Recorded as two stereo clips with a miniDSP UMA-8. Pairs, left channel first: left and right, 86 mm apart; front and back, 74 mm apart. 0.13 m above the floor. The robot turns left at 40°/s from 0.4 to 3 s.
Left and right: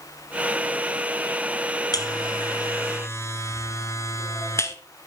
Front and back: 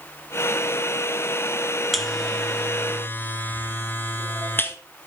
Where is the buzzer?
90° left, 1.1 m; by 4.8 s 50° left, 1.1 m.